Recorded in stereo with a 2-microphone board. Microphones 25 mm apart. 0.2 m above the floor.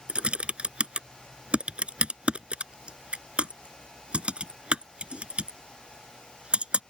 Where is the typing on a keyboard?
50° right (ahead or behind).